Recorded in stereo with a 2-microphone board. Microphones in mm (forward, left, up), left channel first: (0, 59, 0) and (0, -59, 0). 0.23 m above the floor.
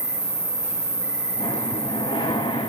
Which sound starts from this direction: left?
Breathing, at 1.4 s.